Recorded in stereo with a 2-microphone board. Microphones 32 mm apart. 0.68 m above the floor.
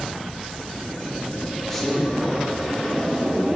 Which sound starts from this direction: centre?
A man speaking, at 1.7 s.